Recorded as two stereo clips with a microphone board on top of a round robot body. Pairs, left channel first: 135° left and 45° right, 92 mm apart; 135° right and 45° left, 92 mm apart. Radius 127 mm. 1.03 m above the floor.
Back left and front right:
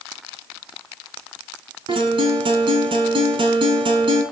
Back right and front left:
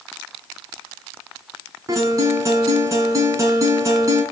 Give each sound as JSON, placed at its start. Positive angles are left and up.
{"t": 1.9, "sound": "a guitar", "azimuth_deg": -10, "distance_m": 4.5}